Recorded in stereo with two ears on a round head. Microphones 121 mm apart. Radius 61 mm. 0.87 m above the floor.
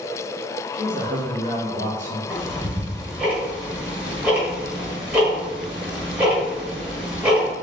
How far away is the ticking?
About 1.4 m.